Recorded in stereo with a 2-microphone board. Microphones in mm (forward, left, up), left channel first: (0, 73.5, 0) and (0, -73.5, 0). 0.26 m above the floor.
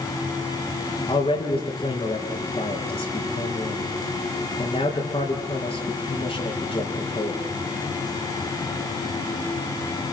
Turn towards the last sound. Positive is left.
turn(degrees=40)  # may be behind; listen again after turning